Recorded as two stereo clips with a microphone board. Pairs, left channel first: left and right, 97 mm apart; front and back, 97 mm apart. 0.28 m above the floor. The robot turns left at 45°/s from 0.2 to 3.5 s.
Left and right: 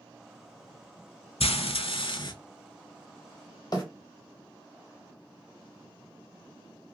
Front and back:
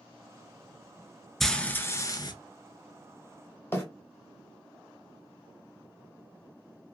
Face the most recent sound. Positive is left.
turn(degrees=60)